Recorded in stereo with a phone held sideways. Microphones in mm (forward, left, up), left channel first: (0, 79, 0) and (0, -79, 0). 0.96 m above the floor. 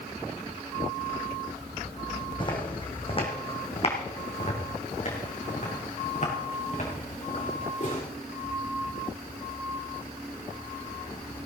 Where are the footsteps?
30° left (ahead or behind), 3 m; by 8.0 s 50° left (ahead or behind), 5.5 m.